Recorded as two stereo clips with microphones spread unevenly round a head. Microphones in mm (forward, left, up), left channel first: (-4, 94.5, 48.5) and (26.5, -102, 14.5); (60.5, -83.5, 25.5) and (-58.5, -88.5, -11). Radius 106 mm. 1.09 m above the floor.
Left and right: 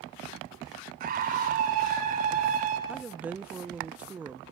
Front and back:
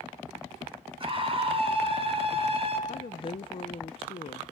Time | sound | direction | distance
1.0 | a scream | 135° right | 9 m
2.9 | a woman speaking | 25° right | 0.5 m